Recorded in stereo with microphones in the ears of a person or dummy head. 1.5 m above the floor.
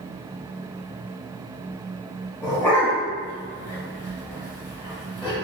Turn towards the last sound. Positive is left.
turn(degrees=15)  # may be behind; listen again after turning